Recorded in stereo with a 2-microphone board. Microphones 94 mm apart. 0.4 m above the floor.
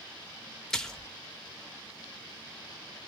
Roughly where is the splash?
Centre.